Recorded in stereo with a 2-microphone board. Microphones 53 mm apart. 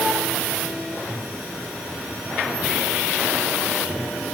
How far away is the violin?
I don't hear a violin.